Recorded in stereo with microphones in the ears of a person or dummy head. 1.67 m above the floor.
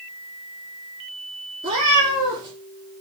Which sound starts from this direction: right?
A cat meowing, at 1.6 s.